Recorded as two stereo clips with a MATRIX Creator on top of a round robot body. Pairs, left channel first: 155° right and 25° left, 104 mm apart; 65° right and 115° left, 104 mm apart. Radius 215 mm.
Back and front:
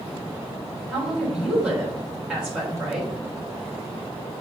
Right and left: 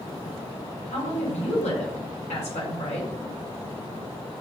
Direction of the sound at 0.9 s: 60° right.